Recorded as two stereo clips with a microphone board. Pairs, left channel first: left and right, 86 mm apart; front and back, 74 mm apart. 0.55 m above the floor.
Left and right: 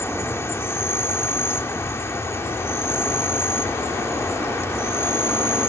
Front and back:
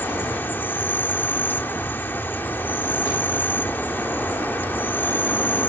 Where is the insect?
45° left.